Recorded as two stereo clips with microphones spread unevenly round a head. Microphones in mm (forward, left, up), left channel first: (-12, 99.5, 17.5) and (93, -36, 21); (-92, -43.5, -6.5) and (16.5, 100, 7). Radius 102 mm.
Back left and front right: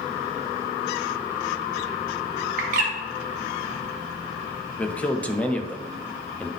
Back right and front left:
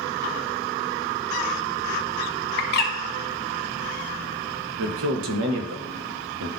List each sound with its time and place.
2.6 s a bird: 95° right, 0.8 m
4.8 s a man speaking: 45° left, 1.0 m